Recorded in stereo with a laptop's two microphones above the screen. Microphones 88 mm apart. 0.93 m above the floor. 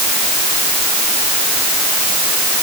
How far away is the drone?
I don't hear a drone.